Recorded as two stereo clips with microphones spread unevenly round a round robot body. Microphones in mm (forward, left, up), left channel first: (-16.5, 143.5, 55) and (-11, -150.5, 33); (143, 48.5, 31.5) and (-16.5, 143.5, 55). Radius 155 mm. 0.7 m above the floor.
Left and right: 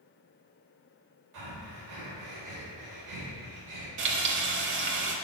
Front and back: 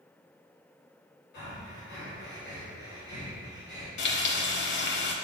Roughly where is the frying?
Ahead right.